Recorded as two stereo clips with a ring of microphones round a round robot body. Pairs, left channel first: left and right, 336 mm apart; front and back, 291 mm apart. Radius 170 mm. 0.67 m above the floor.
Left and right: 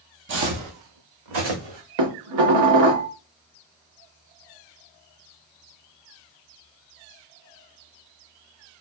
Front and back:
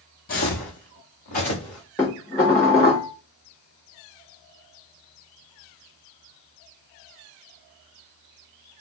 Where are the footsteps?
50° right, 0.8 m; by 1.8 s 75° right, 2.5 m.